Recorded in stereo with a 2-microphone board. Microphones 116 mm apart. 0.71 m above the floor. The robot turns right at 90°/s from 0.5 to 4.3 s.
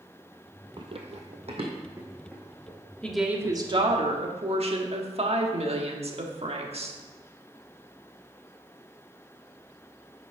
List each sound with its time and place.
0.8 s running footsteps: 40° right (ahead or behind), 1.0 m; by 2.8 s 45° left (ahead or behind), 3.5 m
3.0 s a woman speaking: 170° left, 1.3 m; by 7.0 s 75° right, 1.3 m